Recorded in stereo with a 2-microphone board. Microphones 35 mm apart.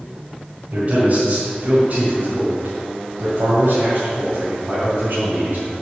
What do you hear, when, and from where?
0.7 s a man speaking: 40° right (ahead or behind), 2.5 m; by 5.7 s 60° right (ahead or behind), 3 m